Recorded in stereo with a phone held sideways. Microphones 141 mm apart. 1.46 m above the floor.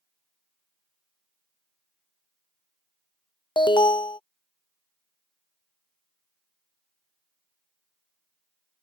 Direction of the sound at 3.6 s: 35° left (ahead or behind).